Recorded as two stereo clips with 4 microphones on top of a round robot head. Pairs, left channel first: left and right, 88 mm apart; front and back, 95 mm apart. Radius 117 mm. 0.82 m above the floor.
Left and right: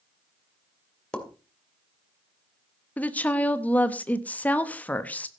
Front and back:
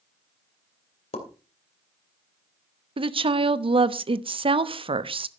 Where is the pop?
10° left, 2.5 m.